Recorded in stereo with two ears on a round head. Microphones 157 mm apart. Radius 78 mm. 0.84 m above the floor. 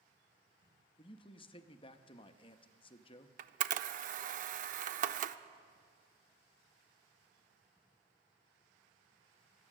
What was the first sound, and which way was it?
A man speaking, 30° left (ahead or behind).